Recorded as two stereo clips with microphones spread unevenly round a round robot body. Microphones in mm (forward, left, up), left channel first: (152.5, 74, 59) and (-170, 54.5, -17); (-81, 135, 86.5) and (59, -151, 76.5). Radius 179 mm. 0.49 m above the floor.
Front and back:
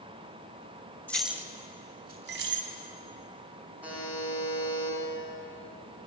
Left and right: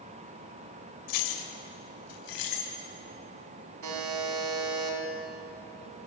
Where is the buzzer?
95° right, 5 m.